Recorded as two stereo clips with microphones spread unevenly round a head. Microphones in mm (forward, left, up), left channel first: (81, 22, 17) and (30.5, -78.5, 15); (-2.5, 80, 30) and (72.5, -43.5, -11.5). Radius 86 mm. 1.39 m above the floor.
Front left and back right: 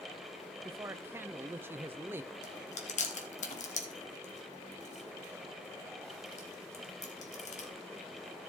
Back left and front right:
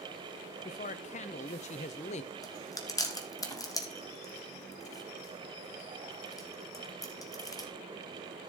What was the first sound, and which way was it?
A man speaking, 175° left.